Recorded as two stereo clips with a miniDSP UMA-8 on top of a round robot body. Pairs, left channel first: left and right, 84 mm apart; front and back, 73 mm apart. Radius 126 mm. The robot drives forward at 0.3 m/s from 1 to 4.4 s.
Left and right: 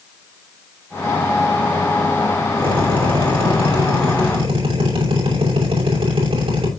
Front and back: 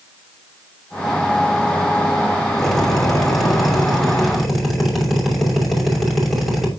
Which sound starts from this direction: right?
A drill, at 2.6 s.